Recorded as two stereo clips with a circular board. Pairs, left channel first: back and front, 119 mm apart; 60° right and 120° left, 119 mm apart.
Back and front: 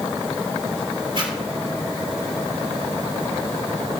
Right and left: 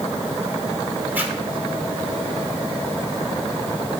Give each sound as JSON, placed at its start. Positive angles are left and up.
{"t": 1.1, "sound": "a zipper", "azimuth_deg": 45, "distance_m": 3.0}